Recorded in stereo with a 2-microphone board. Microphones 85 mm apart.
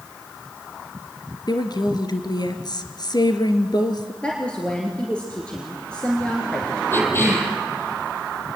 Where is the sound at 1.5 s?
55° left (ahead or behind), 2 m.